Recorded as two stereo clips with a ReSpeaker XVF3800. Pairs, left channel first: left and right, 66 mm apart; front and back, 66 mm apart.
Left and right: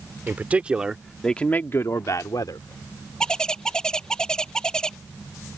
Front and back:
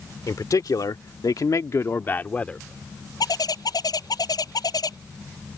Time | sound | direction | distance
0.3 | a man speaking | 25° right | ?
3.2 | a bird | 10° left | ?